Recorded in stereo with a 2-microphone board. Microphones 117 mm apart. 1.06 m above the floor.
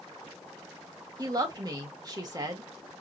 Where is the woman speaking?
35° right (ahead or behind), 2.0 m.